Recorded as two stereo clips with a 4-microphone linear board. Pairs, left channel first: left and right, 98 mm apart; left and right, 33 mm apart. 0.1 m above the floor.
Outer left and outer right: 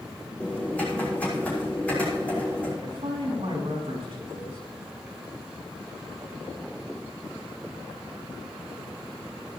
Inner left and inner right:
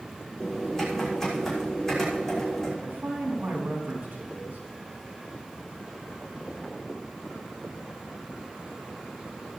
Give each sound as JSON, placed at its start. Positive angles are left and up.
{"t": 0.4, "sound": "typing on a keyboard", "side_deg": 15, "distance_m": 6.0}
{"t": 2.8, "sound": "a man speaking", "side_deg": -65, "distance_m": 5.5}